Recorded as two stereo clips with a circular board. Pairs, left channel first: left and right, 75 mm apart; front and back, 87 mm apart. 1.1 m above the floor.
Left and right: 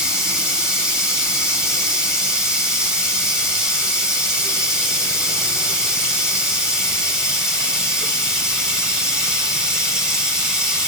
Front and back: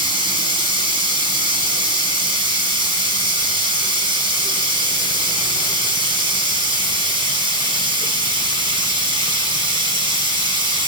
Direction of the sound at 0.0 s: 170° right.